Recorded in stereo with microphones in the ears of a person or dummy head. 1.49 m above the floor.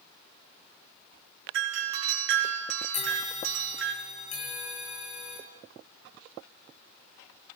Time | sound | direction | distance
1.5 | a doorbell | 70° right (ahead or behind) | 5 m
2.9 | a bell | 45° left (ahead or behind) | 6 m